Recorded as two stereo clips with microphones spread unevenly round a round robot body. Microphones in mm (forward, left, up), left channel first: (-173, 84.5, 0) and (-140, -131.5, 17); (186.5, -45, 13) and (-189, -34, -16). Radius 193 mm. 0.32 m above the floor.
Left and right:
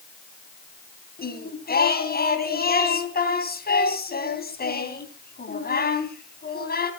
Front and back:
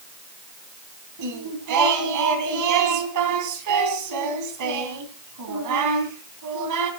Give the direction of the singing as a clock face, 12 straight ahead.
7 o'clock.